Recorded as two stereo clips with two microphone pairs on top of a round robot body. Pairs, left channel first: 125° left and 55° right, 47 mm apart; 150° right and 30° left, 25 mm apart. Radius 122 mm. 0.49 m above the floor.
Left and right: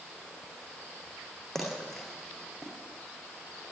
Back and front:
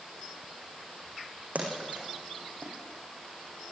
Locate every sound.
1.6 s a splash: 40° left, 7.5 m